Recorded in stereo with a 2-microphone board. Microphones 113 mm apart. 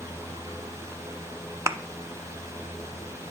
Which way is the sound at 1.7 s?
25° right (ahead or behind).